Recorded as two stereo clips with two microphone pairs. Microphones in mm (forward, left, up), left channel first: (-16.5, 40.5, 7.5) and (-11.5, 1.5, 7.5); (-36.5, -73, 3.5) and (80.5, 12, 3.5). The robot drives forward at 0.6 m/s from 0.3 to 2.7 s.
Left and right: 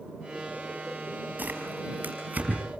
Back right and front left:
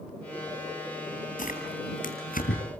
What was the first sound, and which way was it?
Tearing paper, 125° right.